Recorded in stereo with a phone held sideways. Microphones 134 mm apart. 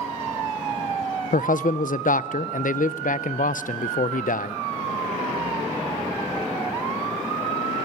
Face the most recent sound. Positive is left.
turn(degrees=85)